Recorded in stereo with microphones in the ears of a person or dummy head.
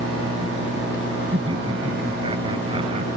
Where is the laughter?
20° right (ahead or behind); by 3.2 s 25° right (ahead or behind).